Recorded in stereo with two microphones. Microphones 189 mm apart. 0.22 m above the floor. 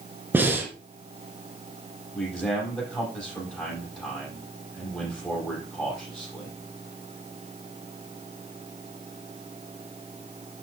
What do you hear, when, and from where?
0.3 s breathing: 10° right (ahead or behind), 2.5 m
2.1 s a man speaking: 5° left (ahead or behind), 7 m